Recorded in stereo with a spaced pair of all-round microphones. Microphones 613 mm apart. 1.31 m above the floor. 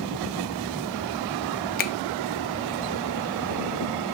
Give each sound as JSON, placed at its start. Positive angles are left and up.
{"t": 1.8, "sound": "a finger snap", "side_deg": 15, "distance_m": 0.6}